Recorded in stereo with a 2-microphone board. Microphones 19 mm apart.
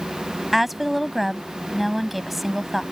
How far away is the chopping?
No chopping in this recording.